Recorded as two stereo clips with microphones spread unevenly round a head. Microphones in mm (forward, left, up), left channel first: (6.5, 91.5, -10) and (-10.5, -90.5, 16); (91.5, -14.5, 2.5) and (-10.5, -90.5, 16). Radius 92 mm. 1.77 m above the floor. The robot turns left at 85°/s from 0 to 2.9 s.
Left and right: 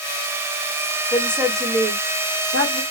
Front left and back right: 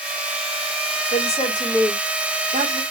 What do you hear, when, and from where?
1.1 s a woman speaking: 15° left, 1.4 m; by 2.8 s 130° right, 1.4 m